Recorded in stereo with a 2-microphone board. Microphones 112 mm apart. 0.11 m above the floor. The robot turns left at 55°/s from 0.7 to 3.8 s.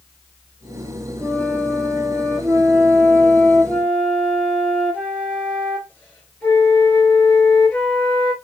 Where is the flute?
60° right, 2.0 m; by 8.3 s 155° left, 2.0 m.